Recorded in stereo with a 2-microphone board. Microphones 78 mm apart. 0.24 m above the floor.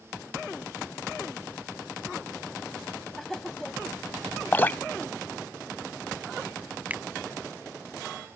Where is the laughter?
5° left (ahead or behind).